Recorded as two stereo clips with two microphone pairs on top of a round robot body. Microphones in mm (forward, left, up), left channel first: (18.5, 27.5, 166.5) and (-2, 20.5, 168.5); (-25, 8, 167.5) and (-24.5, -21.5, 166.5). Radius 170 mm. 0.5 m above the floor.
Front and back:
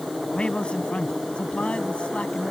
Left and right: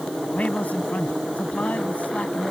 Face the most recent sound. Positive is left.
turn(degrees=55)